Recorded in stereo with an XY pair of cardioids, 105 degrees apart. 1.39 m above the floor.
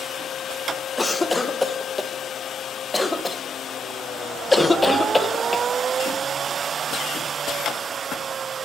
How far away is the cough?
About 1.0 m.